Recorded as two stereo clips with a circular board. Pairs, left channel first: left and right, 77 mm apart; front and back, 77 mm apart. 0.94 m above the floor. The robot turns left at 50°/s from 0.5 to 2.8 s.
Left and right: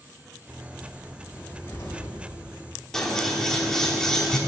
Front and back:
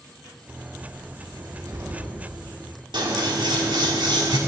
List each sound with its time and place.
1.3 s a cupboard door: 160° left, 2 m; by 2.2 s 120° left, 2 m
2.9 s scissors: 170° left, 1.7 m